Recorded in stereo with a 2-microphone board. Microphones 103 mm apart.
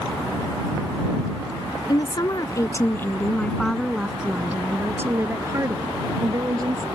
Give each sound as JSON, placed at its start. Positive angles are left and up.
{"t": 1.9, "sound": "a woman speaking", "side_deg": 45}